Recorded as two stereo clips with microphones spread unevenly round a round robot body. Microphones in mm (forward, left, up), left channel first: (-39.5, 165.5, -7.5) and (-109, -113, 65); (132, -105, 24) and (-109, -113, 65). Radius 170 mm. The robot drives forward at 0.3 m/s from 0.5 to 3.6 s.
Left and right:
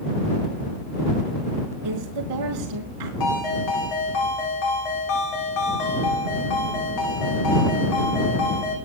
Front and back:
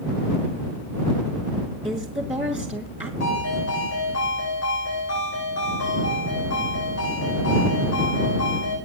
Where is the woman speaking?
105° right, 3 m; by 3.1 s 110° right, 3.5 m.